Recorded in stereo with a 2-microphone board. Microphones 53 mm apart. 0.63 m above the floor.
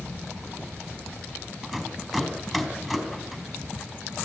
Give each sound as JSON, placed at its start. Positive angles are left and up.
{"t": 1.6, "sound": "a rattle", "side_deg": 5, "distance_m": 4.0}